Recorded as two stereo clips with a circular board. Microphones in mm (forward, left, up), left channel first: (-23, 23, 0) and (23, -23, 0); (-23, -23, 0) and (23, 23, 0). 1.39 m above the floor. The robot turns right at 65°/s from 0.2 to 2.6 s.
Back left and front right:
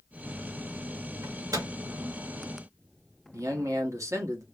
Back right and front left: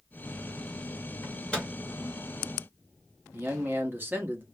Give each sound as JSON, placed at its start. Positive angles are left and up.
{"t": 1.2, "sound": "a microwave", "azimuth_deg": -80, "distance_m": 1.8}
{"t": 3.3, "sound": "a man speaking", "azimuth_deg": -10, "distance_m": 1.4}